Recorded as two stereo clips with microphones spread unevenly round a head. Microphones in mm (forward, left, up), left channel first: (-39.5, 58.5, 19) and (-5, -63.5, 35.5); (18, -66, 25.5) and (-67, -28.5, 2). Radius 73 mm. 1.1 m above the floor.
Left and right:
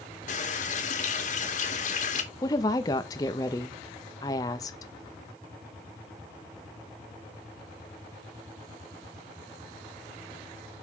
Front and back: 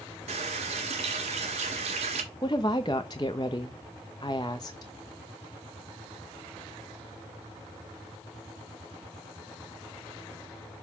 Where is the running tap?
130° left, 1.6 m.